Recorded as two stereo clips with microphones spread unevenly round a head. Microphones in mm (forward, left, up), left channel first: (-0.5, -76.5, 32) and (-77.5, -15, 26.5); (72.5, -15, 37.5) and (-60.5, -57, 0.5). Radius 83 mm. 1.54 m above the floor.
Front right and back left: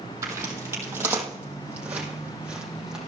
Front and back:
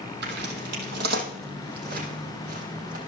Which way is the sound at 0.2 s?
160° right.